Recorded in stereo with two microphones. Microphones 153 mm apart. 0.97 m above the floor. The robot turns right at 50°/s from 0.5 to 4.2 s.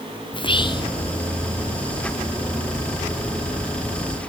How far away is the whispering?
About 0.5 m.